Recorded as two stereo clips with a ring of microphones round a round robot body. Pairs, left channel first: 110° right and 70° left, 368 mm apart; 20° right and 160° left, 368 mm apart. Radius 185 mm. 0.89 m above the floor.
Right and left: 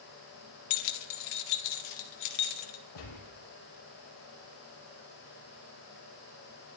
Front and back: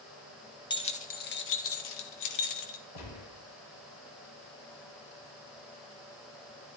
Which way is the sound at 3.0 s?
70° right.